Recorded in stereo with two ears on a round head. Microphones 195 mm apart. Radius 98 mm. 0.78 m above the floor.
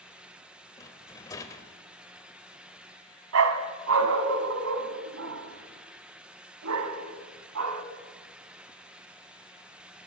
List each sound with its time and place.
0.8 s a rattle: 15° left (ahead or behind), 1.6 m
3.3 s a dog barking: 70° right (ahead or behind), 1.8 m